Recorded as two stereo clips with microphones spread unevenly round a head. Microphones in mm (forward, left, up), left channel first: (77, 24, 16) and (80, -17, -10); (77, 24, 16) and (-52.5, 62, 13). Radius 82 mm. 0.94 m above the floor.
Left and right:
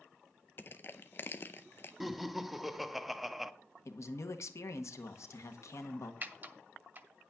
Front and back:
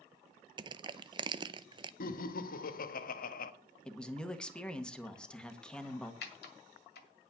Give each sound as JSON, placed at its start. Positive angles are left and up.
{"t": 0.6, "sound": "crushing", "azimuth_deg": 170, "distance_m": 0.5}
{"t": 2.0, "sound": "laughter", "azimuth_deg": -5, "distance_m": 1.1}
{"t": 3.9, "sound": "a man speaking", "azimuth_deg": 65, "distance_m": 1.6}
{"t": 6.2, "sound": "typing on a keyboard", "azimuth_deg": -30, "distance_m": 1.8}